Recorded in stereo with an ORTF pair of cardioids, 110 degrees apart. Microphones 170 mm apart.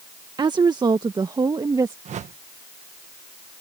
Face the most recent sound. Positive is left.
turn(degrees=-45)